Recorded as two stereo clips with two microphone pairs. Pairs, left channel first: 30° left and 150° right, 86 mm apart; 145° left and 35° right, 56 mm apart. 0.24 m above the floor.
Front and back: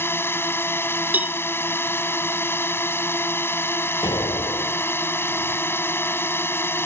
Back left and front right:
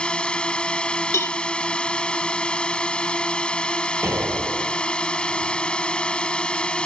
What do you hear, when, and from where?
0.0 s a drone: 80° left
1.1 s a cowbell: 150° left
4.0 s an explosion: straight ahead